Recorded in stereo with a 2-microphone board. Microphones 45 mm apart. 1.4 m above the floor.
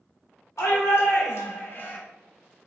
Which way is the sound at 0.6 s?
85° left.